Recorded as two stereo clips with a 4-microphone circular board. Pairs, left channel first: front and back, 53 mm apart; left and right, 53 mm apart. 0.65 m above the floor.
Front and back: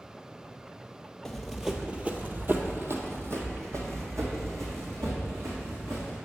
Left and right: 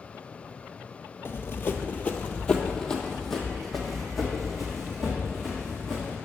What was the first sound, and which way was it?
Running footsteps, 85° left.